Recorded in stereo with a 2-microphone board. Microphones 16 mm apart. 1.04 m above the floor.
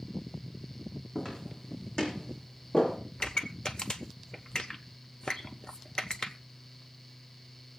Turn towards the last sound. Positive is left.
turn(degrees=60)  # may be behind; listen again after turning